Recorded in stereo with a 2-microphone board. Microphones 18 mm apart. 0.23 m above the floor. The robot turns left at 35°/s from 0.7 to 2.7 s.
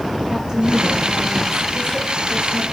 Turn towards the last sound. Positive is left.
turn(degrees=-105)